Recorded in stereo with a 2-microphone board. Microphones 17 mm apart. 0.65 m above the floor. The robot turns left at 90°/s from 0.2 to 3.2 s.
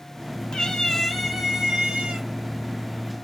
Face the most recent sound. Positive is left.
turn(degrees=-175)